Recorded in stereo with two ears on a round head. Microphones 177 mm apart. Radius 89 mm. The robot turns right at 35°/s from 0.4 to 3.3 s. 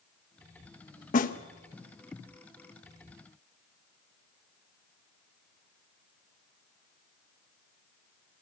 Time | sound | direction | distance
1.1 | a snare drum | 40° left (ahead or behind) | 1.0 m